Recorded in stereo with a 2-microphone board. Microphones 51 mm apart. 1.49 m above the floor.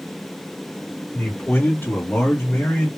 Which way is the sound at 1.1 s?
40° left (ahead or behind).